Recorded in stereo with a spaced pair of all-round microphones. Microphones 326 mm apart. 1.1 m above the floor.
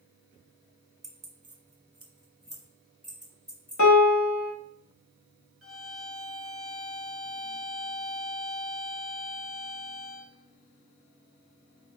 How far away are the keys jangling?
About 0.7 m.